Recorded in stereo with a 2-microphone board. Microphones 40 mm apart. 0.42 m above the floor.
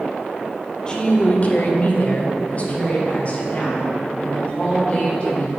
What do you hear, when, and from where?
0.9 s a woman speaking: 25° left (ahead or behind), 0.9 m; by 5.5 s 35° left (ahead or behind), 4.5 m